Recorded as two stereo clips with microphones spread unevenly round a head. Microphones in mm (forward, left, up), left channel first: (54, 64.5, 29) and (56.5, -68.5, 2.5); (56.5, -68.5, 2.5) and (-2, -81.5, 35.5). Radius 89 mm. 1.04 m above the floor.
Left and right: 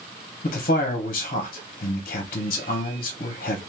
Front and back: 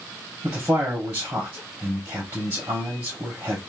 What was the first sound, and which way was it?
A man speaking, 120° left.